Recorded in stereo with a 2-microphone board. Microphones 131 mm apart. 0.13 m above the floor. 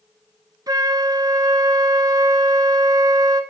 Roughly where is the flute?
Right.